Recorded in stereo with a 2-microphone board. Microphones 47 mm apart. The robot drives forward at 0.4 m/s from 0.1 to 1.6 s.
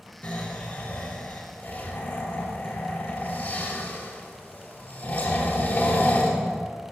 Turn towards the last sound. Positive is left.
turn(degrees=40)  # may be behind; listen again after turning